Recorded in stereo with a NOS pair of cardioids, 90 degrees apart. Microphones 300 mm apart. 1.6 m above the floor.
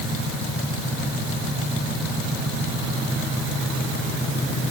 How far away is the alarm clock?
I don't hear an alarm clock.